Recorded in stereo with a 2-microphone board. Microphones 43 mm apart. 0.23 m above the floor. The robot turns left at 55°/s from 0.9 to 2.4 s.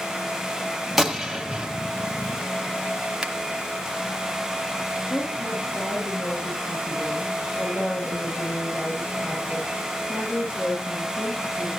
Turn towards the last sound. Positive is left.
turn(degrees=55)  # may be behind; listen again after turning